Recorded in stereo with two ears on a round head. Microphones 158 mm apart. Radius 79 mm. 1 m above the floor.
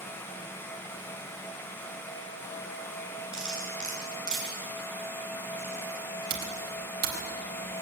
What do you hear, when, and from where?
3.3 s cutlery clinking: 5° right (ahead or behind), 6 m
6.3 s typing on a keyboard: 55° right (ahead or behind), 3.5 m